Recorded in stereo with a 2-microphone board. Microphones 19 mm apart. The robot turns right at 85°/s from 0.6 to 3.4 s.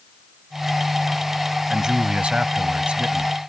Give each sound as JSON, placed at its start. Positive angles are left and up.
{"t": 1.7, "sound": "a man speaking", "azimuth_deg": -165}